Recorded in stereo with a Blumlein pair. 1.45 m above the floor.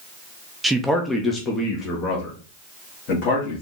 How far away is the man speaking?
About 0.6 m.